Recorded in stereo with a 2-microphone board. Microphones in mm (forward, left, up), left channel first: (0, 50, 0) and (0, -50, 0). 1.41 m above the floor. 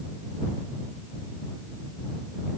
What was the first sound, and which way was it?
Only background noise.